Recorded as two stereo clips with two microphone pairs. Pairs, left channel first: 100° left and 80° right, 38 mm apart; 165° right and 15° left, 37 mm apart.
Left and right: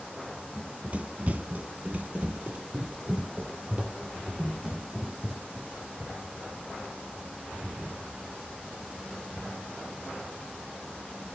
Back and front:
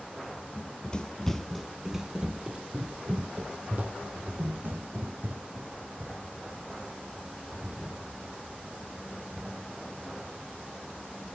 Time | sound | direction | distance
0.6 | running footsteps | 130° right | 1.0 m